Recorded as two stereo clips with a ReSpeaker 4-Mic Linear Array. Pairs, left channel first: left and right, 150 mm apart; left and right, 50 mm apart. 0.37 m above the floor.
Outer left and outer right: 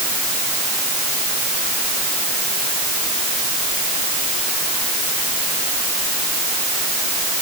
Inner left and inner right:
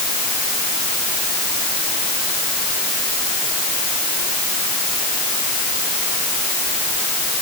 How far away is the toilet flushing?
No toilet flushing in this recording.